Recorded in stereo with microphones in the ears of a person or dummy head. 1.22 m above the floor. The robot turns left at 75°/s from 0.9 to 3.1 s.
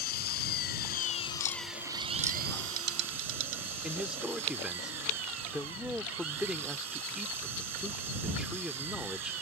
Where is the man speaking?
5° right (ahead or behind).